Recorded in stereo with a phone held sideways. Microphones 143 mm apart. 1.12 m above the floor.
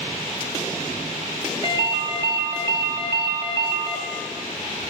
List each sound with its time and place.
1.6 s a ringtone: 30° right (ahead or behind), 1.8 m